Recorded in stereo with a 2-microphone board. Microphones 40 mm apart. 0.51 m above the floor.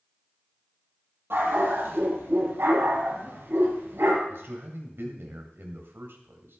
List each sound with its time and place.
1.3 s a dog barking: 75° right (ahead or behind), 5.5 m
4.3 s a man speaking: 70° right (ahead or behind), 3 m